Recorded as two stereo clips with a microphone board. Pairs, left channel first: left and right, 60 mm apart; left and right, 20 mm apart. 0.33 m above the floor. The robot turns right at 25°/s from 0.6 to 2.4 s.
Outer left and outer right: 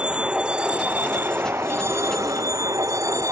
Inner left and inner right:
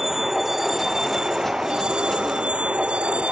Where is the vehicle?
165° right; by 3.3 s 120° right.